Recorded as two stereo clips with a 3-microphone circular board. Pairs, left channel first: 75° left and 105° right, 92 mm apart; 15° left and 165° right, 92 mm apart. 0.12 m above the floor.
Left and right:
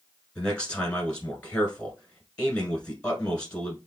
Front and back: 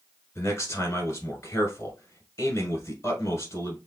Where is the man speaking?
10° left, 1.2 m.